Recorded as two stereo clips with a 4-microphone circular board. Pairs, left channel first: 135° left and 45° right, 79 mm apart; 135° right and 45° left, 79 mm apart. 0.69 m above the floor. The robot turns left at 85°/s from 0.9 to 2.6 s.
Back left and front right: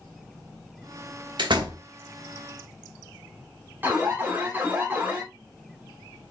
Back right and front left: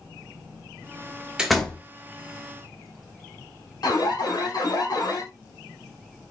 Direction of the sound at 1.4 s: 35° right.